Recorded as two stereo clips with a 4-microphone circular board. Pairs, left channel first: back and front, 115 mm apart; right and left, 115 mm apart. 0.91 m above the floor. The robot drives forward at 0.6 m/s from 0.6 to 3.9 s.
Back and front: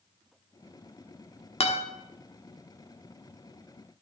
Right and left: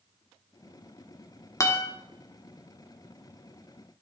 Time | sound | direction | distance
1.6 | a guitar | 150° right | 1.1 m